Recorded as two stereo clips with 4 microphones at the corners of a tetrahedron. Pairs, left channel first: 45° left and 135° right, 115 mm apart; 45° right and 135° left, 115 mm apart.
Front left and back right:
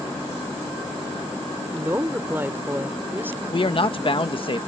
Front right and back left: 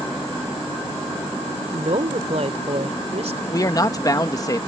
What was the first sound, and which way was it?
A woman speaking, 155° left.